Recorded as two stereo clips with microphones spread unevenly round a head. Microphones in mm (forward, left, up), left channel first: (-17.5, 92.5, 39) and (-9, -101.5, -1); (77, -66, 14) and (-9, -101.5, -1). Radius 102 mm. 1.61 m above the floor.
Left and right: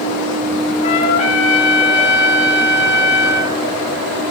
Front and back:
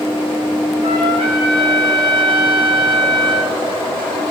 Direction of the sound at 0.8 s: 145° left.